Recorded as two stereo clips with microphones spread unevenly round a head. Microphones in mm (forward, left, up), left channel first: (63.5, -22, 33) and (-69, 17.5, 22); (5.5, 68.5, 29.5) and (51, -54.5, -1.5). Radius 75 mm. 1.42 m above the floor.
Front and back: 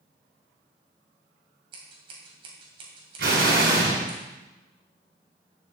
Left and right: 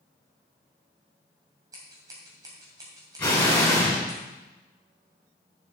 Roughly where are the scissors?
Behind right.